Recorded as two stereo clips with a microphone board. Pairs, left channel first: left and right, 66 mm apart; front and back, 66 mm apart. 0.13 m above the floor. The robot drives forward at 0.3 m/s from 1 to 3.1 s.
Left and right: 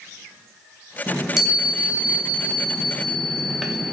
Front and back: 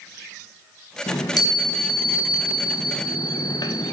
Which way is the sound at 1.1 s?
5° right.